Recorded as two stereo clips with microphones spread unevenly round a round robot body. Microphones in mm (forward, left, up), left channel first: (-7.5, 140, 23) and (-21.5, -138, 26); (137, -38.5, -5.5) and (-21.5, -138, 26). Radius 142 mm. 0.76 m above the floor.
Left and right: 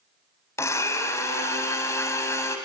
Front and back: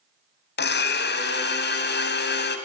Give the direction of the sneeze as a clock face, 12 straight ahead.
I don't hear a sneeze.